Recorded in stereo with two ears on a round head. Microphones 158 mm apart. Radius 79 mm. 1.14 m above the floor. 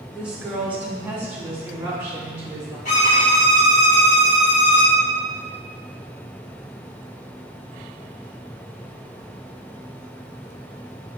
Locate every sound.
0.1 s a woman speaking: 5° right (ahead or behind), 1.1 m; by 2.8 s 15° right (ahead or behind), 4 m
2.9 s a violin: 40° left (ahead or behind), 1.5 m